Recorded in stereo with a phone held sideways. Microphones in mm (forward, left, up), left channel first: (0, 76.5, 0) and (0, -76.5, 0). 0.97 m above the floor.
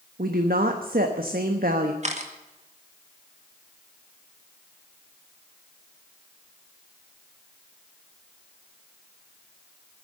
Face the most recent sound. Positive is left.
turn(degrees=-50)  # may be behind; listen again after turning